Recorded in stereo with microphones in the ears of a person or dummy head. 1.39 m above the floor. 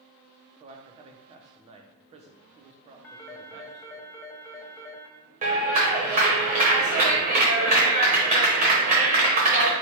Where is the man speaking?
35° right (ahead or behind), 0.7 m.